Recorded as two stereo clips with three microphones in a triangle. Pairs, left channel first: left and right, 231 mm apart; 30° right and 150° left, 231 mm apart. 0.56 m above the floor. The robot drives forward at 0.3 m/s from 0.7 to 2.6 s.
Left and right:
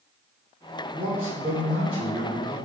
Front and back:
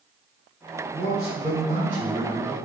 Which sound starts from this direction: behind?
A man speaking, at 0.9 s.